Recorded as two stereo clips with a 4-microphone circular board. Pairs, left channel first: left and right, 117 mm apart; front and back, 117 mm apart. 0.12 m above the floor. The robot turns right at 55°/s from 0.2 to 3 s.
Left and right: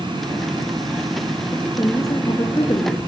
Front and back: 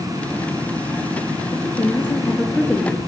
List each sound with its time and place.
1.5 s a woman speaking: 30° left, 1.8 m; by 3.0 s 110° left, 1.8 m